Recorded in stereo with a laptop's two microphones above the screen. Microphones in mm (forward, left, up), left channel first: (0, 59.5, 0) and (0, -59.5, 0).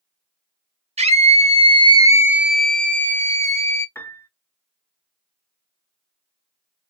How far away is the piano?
About 0.7 m.